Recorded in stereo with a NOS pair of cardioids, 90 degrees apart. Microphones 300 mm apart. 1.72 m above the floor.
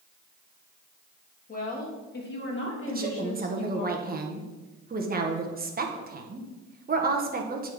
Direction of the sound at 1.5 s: 25° left.